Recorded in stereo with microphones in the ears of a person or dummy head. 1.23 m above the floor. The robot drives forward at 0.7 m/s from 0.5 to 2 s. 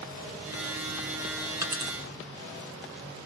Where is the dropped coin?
15° right (ahead or behind), 1.7 m.